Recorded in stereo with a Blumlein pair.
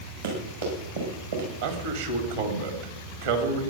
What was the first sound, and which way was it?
Running footsteps, 65° right.